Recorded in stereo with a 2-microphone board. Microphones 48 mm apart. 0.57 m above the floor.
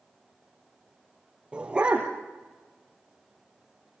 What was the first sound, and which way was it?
A dog barking, 20° right (ahead or behind).